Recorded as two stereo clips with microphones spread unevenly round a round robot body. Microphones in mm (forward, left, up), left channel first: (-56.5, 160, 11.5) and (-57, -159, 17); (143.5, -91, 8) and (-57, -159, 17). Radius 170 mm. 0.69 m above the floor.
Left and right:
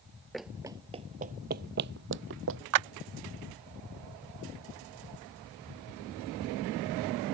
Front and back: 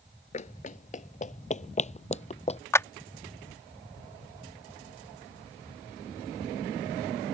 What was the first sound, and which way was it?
Running footsteps, straight ahead.